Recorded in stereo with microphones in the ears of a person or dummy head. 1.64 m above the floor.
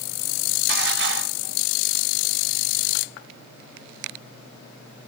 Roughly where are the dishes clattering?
Right.